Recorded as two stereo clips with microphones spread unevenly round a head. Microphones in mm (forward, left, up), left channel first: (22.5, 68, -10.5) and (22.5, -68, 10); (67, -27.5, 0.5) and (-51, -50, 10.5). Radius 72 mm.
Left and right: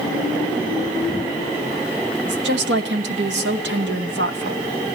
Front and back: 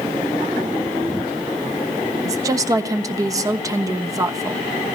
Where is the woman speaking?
105° right, 1.2 m.